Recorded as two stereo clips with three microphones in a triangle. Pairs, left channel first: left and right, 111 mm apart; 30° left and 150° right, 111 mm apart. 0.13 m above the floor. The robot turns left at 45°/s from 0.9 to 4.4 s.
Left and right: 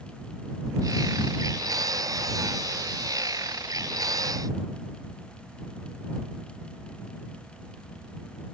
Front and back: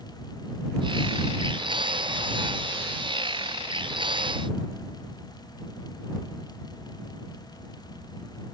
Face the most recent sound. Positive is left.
No sound to turn to.